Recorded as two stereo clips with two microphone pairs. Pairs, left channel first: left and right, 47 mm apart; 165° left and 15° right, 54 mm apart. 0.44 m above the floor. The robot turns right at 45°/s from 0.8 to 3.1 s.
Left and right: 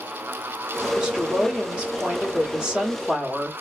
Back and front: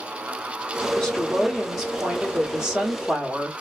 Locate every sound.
1.0 s a woman speaking: 130° right, 1.2 m; by 3.5 s 35° right, 1.2 m